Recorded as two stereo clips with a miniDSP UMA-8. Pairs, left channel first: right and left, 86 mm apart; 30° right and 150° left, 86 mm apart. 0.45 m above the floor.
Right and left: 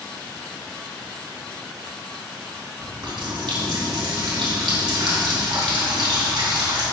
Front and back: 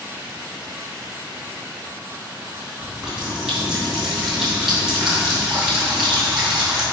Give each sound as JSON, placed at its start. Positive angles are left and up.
{"t": 2.8, "sound": "a running tap", "azimuth_deg": 65, "distance_m": 2.5}